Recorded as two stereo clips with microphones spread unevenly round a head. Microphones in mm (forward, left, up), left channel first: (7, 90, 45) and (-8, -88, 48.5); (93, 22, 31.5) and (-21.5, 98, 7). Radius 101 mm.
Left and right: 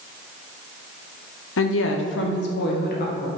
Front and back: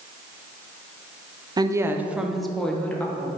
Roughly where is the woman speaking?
Left.